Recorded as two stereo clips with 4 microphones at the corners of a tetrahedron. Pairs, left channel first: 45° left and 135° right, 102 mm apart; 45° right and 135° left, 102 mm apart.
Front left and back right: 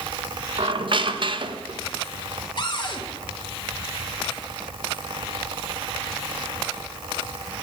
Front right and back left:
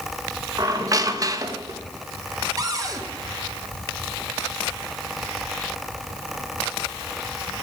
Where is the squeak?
170° right, 0.7 m.